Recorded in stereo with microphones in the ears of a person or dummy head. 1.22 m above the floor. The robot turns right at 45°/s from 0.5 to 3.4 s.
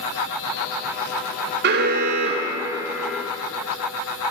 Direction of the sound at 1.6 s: 60° right.